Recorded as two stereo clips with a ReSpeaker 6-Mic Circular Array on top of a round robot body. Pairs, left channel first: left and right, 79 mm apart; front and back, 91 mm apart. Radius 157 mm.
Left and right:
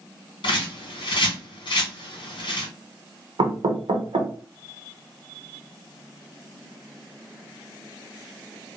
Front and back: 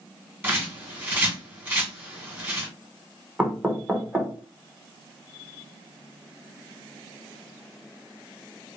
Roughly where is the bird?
Left.